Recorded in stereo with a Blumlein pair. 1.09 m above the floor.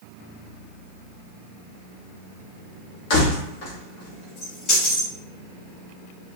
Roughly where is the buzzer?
No buzzer in this recording.